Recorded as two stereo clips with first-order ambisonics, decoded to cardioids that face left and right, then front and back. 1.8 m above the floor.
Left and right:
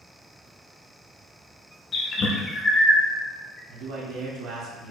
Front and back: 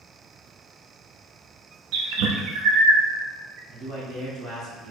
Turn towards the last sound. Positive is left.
turn(degrees=-115)